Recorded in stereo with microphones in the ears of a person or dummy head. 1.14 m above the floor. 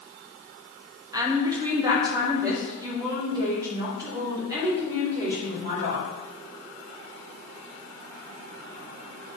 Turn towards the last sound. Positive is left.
turn(degrees=-15)  # may be behind; listen again after turning